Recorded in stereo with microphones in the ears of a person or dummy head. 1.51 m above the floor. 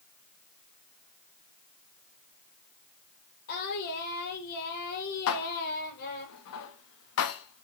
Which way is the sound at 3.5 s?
55° left (ahead or behind).